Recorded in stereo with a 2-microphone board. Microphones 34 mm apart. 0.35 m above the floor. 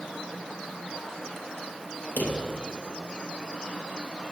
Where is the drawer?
75° left (ahead or behind), 2.5 m.